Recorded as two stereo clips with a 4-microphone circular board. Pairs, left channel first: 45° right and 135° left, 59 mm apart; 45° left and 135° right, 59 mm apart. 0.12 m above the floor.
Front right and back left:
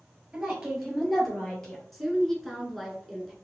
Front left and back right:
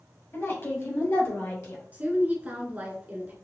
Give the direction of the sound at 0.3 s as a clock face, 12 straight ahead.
10 o'clock.